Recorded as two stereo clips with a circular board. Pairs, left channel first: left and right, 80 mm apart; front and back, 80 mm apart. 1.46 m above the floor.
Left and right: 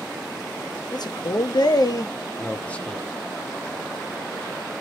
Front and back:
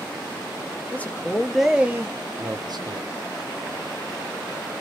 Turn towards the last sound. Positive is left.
turn(degrees=175)